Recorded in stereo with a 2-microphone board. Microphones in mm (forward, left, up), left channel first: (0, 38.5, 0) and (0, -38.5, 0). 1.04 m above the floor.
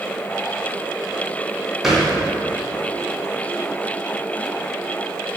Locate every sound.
1.8 s a thud: 5° right (ahead or behind), 2 m